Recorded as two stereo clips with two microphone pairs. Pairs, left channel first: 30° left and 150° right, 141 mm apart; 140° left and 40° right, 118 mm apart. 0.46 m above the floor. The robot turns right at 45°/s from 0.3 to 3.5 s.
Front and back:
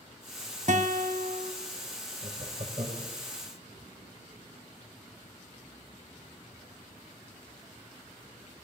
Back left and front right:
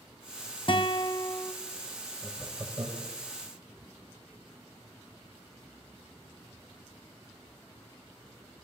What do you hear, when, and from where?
0.7 s a guitar: straight behind, 1.3 m; by 1.5 s 140° right, 1.3 m
2.2 s laughter: 130° right, 2 m; by 3.1 s 90° right, 2 m